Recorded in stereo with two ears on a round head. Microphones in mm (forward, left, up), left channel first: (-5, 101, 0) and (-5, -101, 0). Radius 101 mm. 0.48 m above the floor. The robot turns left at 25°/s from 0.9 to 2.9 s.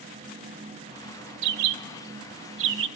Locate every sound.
1.4 s a bird: 85° right, 0.6 m; by 2.9 s 55° right (ahead or behind), 0.6 m